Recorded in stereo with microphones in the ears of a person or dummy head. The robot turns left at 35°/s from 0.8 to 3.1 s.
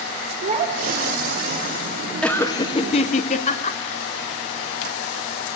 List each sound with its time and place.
0.4 s a child speaking: 40° right (ahead or behind), 1.7 m; by 1.5 s 60° right (ahead or behind), 1.7 m
2.2 s laughter: straight behind, 0.6 m; by 3.8 s 150° left, 0.6 m